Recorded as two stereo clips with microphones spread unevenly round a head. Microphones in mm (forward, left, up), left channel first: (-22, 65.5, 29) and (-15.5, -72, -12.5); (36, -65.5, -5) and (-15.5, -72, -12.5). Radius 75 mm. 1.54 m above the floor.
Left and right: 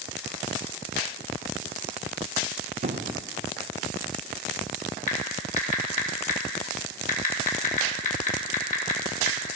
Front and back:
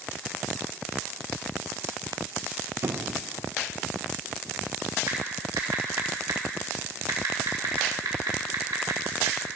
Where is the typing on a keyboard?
130° left, 3 m.